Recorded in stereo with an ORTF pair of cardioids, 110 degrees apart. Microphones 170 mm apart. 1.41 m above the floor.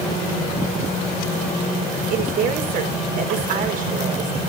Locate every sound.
2.1 s a woman speaking: 55° right, 4.5 m